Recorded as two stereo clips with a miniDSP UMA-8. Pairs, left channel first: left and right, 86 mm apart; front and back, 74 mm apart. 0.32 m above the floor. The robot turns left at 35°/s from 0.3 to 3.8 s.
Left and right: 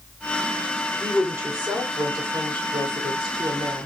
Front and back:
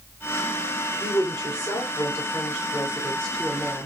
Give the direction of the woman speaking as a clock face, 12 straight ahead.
1 o'clock.